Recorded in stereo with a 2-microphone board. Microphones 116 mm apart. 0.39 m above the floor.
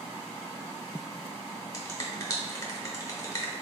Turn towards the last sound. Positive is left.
turn(degrees=30)  # may be behind; listen again after turning